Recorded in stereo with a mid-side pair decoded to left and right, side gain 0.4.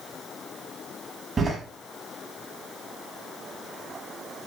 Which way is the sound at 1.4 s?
40° right.